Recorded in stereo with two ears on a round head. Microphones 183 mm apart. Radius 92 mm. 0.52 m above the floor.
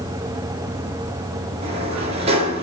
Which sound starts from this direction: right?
A sliding door, at 1.6 s.